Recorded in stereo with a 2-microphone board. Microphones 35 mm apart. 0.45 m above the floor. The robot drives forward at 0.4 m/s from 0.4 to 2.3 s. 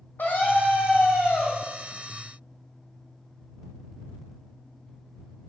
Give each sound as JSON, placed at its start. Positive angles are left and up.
{"t": 0.2, "sound": "a scream", "side_deg": 65, "distance_m": 1.7}